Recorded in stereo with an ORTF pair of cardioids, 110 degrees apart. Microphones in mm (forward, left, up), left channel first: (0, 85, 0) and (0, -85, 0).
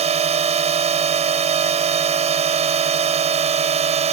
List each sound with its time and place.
0.0 s a drone: 40° right